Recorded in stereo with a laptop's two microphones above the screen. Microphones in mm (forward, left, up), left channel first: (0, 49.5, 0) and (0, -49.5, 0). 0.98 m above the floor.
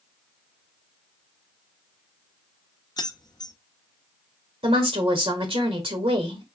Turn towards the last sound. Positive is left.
turn(degrees=-70)  # may be behind; listen again after turning